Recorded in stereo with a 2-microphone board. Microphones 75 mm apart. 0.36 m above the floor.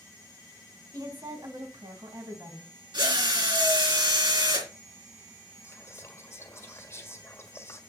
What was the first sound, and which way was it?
A woman speaking, 55° right (ahead or behind).